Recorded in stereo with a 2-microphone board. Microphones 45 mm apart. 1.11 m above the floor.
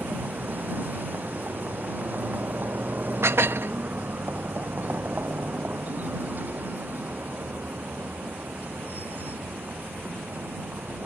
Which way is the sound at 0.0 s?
40° right (ahead or behind).